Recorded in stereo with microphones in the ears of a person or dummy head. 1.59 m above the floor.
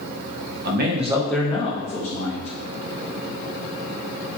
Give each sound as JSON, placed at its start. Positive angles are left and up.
{"t": 0.7, "sound": "a man speaking", "side_deg": -60, "distance_m": 0.7}